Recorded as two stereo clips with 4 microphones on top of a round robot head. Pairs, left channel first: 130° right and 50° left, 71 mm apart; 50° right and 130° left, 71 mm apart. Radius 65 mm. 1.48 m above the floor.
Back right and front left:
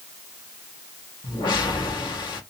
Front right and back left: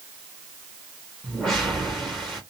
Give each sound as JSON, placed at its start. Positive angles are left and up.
{"t": 1.2, "sound": "a whoosh", "azimuth_deg": -135, "distance_m": 1.2}